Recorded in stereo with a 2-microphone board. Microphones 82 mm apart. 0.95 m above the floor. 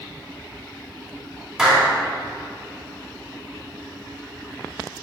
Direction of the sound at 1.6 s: 10° right (ahead or behind).